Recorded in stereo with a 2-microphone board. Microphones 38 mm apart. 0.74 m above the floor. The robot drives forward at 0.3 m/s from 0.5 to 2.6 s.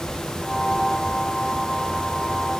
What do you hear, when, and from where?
Only background noise.